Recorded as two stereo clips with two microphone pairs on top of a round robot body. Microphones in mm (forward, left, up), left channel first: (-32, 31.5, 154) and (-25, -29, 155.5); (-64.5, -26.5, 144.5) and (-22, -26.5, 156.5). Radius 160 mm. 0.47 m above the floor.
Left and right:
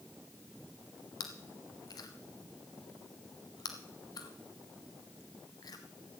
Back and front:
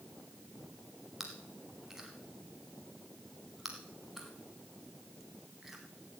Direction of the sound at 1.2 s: 75° left.